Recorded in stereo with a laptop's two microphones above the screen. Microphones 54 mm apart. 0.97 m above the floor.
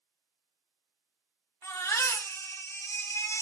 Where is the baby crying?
65° left (ahead or behind), 2.5 m.